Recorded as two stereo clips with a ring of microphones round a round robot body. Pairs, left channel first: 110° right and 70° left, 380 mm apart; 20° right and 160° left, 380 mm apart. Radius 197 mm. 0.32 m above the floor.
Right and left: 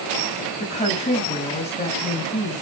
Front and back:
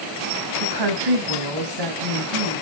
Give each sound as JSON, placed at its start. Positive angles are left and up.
{"t": 0.6, "sound": "a woman speaking", "azimuth_deg": 175, "distance_m": 3.0}